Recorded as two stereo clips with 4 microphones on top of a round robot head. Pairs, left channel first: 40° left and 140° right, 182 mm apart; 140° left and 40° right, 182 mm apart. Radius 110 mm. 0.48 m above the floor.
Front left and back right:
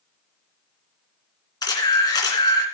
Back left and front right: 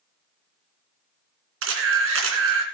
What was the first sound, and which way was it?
A camera shutter, 30° right.